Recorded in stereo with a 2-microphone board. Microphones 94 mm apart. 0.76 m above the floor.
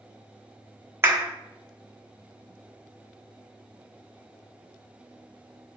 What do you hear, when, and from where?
1.0 s a clap: 30° right (ahead or behind), 1.1 m